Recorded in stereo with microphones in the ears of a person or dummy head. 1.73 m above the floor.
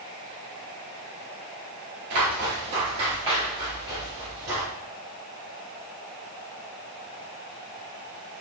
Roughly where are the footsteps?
Right.